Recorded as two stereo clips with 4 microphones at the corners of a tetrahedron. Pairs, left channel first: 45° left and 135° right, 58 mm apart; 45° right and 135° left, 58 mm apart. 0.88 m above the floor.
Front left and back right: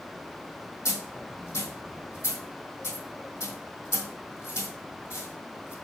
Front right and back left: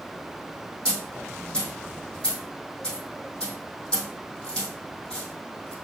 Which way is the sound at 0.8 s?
30° left.